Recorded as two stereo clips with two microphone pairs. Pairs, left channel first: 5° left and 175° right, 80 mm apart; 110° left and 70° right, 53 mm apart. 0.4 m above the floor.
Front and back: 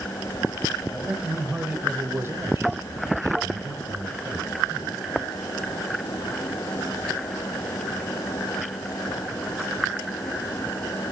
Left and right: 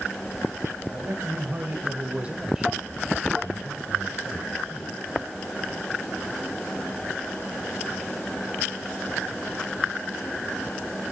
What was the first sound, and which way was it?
A man speaking, 90° right.